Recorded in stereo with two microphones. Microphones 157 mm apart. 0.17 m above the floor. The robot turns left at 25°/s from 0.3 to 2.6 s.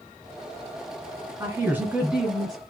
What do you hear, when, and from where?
1.4 s a woman speaking: 15° right (ahead or behind), 1.7 m; by 2.6 s centre (ahead or behind), 1.7 m